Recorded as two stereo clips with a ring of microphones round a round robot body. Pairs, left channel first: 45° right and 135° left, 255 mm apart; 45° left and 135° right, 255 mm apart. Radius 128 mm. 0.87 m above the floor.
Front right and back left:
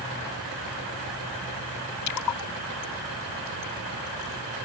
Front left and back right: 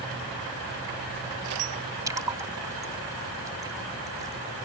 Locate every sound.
2.1 s a splash: 55° right